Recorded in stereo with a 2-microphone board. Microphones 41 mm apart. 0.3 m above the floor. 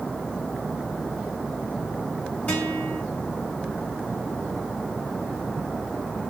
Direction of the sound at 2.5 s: 35° left (ahead or behind).